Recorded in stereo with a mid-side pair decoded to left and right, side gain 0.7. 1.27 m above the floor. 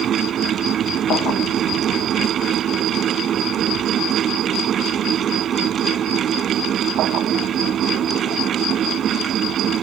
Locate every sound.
0.0 s a fan: 40° right